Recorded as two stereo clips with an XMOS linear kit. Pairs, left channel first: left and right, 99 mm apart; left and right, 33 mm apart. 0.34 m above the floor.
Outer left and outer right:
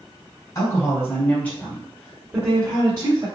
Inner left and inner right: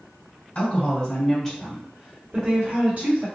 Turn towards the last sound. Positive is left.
turn(degrees=-45)  # may be behind; listen again after turning